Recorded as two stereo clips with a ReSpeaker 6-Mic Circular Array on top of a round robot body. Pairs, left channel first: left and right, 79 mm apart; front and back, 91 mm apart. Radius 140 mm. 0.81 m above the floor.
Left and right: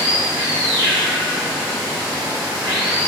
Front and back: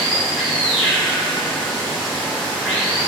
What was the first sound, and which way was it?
Running water, 90° right.